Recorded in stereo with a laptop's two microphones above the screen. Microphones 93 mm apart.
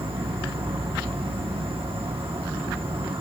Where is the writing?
No writing in this recording.